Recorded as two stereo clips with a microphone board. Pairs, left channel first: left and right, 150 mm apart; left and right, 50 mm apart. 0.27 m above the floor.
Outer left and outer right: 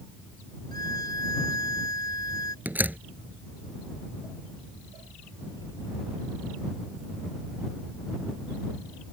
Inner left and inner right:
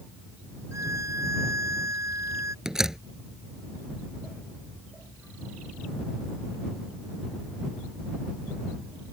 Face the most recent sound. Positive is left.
turn(degrees=-10)  # may be behind; listen again after turning